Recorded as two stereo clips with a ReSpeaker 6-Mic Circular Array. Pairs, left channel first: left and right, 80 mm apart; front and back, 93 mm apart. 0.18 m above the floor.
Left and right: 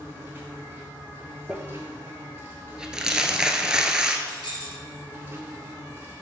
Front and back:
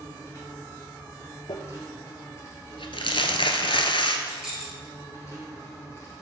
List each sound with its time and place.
0.0 s an insect: 40° right, 2.5 m
1.5 s crumpling: 10° right, 0.8 m
4.3 s keys jangling: 95° left, 2.5 m